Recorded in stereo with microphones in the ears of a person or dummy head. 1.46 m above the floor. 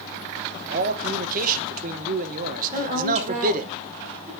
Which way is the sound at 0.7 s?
40° right (ahead or behind).